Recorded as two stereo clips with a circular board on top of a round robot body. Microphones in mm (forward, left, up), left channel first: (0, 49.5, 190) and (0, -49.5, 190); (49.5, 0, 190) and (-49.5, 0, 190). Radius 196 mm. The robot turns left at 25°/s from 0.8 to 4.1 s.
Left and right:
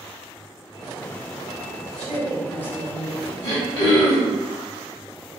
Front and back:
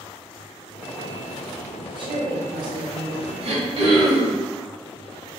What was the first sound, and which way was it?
A woman speaking, 170° left.